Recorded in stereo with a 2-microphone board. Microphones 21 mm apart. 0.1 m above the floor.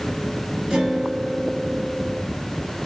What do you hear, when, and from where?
0.7 s a guitar: 45° right (ahead or behind), 2.5 m